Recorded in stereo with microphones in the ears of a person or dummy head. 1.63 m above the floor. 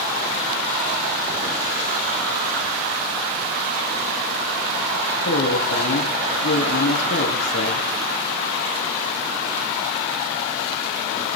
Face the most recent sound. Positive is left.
turn(degrees=80)